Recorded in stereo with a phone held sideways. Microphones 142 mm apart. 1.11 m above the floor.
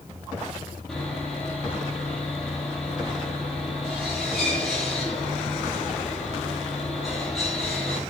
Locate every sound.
0.9 s sawing: centre (ahead or behind), 8.5 m